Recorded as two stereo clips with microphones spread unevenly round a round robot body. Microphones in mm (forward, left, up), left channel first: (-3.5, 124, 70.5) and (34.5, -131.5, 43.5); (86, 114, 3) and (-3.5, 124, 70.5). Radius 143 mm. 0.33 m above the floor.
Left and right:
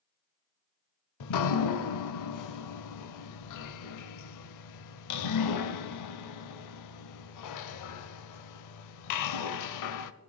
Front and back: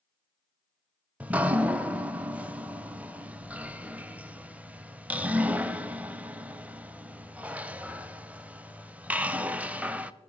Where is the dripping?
85° left, 0.6 m.